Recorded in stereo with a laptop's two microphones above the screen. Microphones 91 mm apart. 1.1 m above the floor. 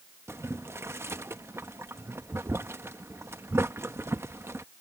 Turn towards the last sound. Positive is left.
turn(degrees=-25)  # may be behind; listen again after turning